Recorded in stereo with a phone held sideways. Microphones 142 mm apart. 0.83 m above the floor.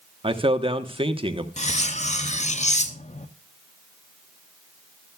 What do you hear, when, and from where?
0.2 s a man speaking: 40° right (ahead or behind), 1.1 m
1.6 s cutlery clinking: 55° left (ahead or behind), 0.6 m